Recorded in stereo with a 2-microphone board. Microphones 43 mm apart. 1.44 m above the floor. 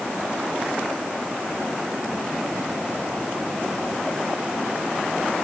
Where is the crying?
I don't hear crying.